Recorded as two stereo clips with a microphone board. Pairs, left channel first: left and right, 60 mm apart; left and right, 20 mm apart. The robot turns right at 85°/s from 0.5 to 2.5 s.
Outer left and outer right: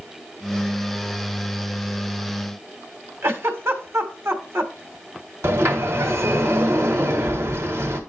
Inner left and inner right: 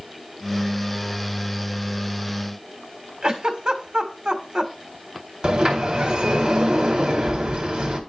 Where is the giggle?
45° right (ahead or behind), 1.6 m.